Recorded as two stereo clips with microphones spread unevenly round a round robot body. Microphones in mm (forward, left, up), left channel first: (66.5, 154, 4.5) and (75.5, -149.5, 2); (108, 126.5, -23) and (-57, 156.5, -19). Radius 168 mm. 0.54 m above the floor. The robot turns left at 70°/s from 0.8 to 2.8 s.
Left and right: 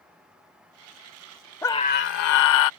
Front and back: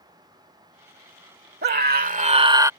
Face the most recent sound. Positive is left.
turn(degrees=90)